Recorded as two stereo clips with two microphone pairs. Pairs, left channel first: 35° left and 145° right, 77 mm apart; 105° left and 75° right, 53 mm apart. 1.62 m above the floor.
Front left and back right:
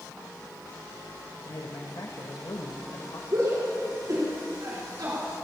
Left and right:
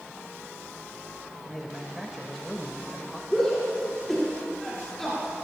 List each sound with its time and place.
1.4 s a man speaking: 20° left, 1.4 m
3.3 s a shout: 165° right, 5 m